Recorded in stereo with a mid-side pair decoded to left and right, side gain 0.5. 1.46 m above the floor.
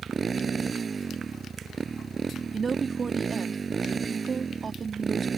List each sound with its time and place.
0.0 s a motorcycle: 35° right
2.5 s a woman speaking: 35° right